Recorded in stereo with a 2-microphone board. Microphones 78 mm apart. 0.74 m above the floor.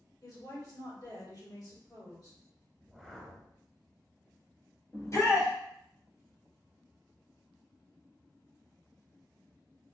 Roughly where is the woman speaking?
Left.